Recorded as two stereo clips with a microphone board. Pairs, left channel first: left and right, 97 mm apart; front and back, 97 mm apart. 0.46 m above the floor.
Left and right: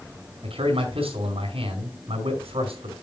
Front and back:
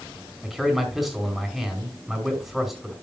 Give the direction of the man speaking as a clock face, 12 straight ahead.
3 o'clock.